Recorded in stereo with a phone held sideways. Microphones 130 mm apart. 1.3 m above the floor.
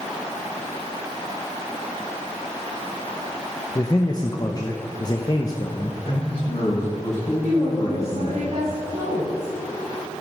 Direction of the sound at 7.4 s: 85° right.